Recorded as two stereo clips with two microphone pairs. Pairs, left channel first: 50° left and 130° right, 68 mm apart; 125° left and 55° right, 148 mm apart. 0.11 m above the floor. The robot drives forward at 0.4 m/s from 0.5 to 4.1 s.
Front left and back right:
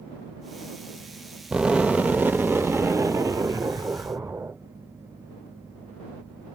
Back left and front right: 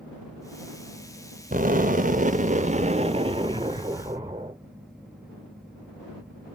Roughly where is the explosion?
Ahead right.